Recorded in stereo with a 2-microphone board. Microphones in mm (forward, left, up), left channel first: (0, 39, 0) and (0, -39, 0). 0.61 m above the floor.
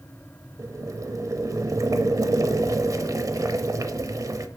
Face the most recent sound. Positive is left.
turn(degrees=-45)  # may be behind; listen again after turning